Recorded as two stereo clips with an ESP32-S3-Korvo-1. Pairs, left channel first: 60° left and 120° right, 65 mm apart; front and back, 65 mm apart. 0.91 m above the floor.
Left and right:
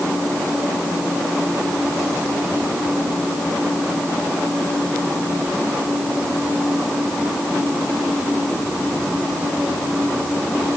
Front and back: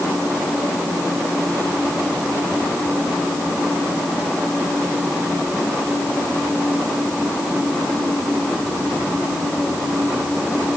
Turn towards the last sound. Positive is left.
No sound to turn to.